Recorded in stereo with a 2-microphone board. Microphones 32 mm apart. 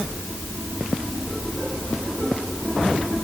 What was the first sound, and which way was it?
Only background noise.